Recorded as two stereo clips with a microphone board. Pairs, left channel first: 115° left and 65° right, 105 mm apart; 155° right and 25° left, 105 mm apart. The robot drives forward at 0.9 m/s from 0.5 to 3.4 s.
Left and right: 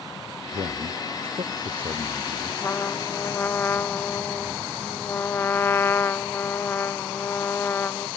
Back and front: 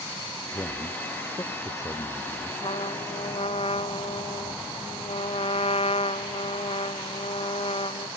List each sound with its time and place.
0.5 s a man speaking: 90° right; by 2.5 s 100° right
2.6 s a trumpet: straight behind